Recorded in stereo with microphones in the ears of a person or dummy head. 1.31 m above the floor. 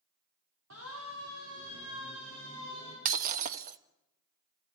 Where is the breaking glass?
40° right (ahead or behind), 0.8 m.